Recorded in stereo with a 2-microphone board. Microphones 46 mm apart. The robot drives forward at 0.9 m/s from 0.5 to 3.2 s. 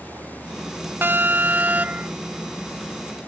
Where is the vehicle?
70° right (ahead or behind).